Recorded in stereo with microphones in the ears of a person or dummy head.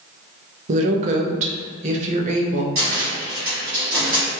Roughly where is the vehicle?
No vehicle in this recording.